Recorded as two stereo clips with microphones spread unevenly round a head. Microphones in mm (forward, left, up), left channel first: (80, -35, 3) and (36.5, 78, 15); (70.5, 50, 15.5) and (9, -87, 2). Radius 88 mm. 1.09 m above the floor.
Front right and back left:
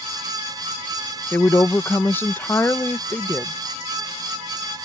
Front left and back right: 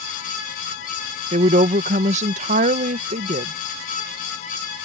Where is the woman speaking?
140° right.